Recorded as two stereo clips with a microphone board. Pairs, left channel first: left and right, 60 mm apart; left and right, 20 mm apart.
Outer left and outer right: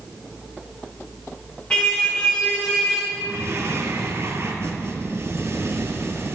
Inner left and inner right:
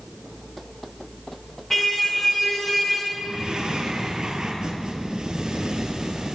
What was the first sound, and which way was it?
A car horn, 20° left (ahead or behind).